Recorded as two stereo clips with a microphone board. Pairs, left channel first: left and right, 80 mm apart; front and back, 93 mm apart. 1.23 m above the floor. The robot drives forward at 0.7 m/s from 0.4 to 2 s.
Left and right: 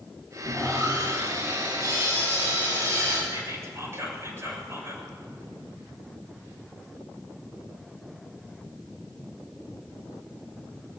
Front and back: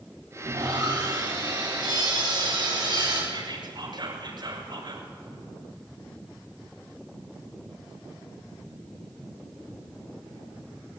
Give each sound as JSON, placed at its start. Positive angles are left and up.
{"t": 0.4, "sound": "sawing", "azimuth_deg": -140, "distance_m": 9.5}
{"t": 3.3, "sound": "whispering", "azimuth_deg": -145, "distance_m": 6.0}